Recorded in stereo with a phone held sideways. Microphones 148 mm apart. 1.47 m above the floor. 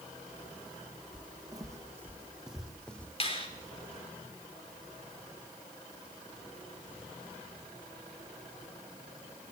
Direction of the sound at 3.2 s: 40° left (ahead or behind).